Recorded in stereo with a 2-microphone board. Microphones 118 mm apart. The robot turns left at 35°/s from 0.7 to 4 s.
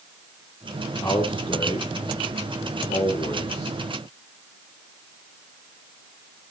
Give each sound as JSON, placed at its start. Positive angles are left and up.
{"t": 1.0, "sound": "a man speaking", "side_deg": 20, "distance_m": 6.0}